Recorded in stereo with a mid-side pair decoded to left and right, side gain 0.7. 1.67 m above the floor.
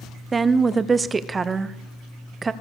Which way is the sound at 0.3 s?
20° right.